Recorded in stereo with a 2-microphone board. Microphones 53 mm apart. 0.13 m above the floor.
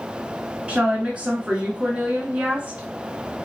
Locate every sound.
0.7 s a woman speaking: 20° right (ahead or behind), 1.1 m